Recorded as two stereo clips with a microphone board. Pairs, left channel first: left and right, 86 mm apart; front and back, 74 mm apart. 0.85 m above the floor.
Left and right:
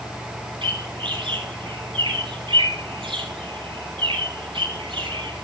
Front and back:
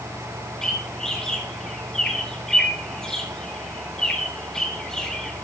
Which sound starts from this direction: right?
A bird, at 0.6 s.